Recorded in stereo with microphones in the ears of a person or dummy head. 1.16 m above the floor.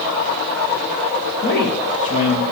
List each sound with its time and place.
1.4 s a man speaking: 55° left (ahead or behind), 2.0 m; by 2.4 s 30° left (ahead or behind), 1.9 m